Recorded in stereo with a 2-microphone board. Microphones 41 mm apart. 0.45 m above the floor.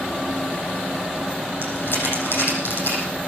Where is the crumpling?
75° left (ahead or behind), 7.5 m.